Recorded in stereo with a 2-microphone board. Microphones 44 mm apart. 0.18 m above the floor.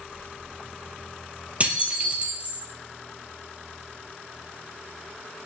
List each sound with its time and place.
1.6 s dishes clattering: 35° right (ahead or behind), 3 m